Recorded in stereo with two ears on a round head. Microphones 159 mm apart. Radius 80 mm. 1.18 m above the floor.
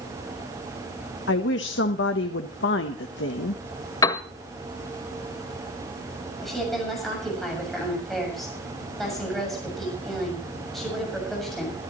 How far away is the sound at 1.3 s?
About 1.1 m.